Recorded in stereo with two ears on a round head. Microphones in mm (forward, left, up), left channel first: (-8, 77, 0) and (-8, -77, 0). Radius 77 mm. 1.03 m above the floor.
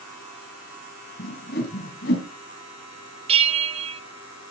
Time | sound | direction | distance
1.2 | a whoosh | 60° left (ahead or behind) | 2.5 m
3.3 | a bell | 35° right (ahead or behind) | 1.0 m